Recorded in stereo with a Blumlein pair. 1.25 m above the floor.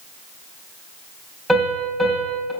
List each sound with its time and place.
1.5 s a piano: straight ahead, 5 m